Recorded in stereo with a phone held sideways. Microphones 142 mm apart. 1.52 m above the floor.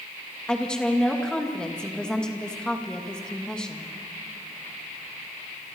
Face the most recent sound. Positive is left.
turn(degrees=5)  # may be behind; listen again after turning